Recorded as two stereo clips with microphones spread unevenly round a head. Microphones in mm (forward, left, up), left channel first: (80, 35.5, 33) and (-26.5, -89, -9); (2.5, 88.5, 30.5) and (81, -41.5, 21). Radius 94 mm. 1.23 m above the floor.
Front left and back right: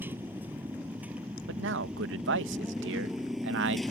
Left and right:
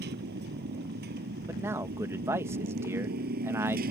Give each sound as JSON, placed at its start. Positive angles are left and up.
{"t": 0.0, "sound": "a motorcycle", "azimuth_deg": -50}
{"t": 1.5, "sound": "a man speaking", "azimuth_deg": -135}